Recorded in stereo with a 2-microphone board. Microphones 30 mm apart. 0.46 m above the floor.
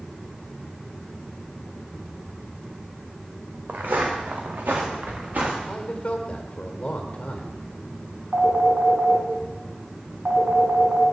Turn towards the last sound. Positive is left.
turn(degrees=-65)  # may be behind; listen again after turning